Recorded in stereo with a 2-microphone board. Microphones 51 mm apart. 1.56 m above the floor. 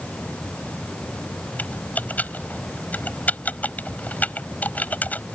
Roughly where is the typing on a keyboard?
Left.